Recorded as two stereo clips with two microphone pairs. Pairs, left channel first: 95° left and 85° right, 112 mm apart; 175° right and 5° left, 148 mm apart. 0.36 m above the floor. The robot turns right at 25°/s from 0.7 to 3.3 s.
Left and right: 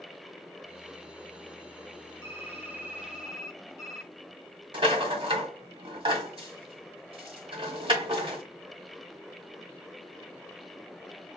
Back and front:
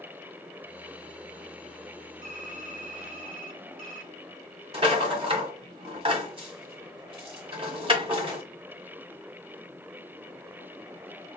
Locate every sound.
2.2 s typing on a keyboard: 25° right, 1.8 m; by 4.1 s straight ahead, 1.8 m
4.7 s a rattle: 45° right, 1.6 m